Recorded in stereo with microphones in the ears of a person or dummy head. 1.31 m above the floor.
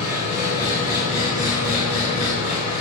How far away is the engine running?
About 5 m.